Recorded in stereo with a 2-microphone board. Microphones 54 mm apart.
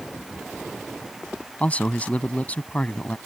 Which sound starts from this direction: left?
A man speaking, at 1.6 s.